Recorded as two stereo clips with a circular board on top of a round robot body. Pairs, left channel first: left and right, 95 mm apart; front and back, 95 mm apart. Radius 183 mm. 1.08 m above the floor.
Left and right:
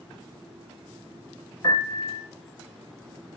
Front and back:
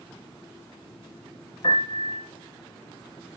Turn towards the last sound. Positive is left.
turn(degrees=40)